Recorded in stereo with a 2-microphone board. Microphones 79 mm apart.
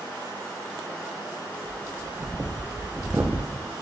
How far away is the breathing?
About 0.6 m.